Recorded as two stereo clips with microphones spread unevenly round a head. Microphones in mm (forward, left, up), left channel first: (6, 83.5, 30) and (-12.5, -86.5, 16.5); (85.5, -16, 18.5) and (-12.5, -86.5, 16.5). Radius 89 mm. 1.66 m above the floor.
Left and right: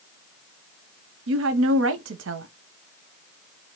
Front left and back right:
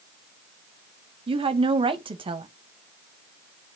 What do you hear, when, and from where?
1.3 s a woman speaking: 105° right, 0.6 m